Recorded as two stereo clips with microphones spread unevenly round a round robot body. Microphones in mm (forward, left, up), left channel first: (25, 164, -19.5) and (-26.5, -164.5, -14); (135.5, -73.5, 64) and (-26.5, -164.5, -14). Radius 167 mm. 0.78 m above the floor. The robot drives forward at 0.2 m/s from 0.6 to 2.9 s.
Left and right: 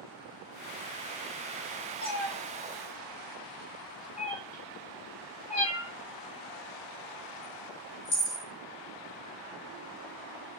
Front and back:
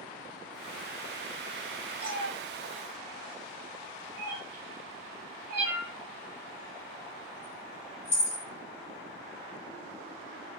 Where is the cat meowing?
140° left, 0.8 m; by 8.4 s 150° left, 0.9 m.